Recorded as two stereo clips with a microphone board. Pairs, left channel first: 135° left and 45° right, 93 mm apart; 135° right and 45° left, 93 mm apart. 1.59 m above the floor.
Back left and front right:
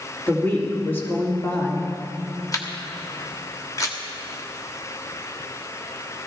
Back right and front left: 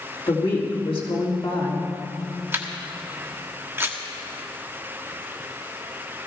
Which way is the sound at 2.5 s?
100° left.